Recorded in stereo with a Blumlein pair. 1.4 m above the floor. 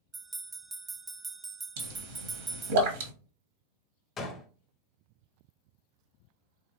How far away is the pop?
About 1.1 m.